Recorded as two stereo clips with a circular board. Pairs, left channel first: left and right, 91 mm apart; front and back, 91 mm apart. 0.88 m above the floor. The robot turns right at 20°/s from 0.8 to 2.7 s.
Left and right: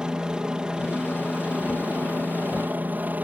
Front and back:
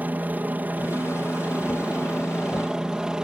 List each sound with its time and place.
0.0 s a helicopter: 155° right; by 3.2 s 115° right